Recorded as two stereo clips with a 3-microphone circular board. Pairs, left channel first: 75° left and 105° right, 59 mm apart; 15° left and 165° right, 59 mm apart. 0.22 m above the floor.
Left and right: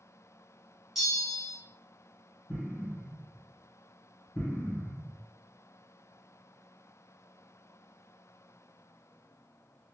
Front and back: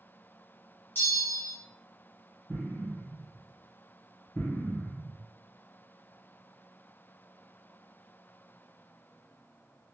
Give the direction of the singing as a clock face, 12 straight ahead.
I don't hear singing.